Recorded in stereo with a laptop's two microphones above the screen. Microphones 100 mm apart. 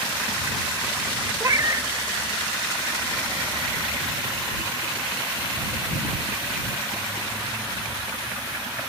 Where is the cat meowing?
35° right (ahead or behind).